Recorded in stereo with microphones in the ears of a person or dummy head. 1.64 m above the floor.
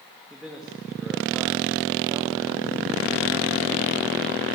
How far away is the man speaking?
About 3 m.